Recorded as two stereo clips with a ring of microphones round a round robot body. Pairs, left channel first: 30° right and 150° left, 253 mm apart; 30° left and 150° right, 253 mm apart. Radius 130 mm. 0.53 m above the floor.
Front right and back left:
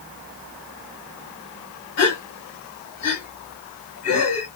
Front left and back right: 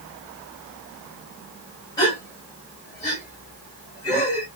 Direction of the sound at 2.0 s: 45° right.